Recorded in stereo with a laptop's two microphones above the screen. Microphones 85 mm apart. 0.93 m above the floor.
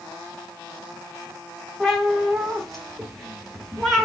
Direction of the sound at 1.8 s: Centre (ahead or behind).